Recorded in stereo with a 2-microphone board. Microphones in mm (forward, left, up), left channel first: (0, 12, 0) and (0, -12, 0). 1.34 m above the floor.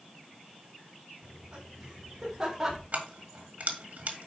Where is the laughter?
55° right (ahead or behind), 4 m; by 2.8 s 25° right (ahead or behind), 3 m.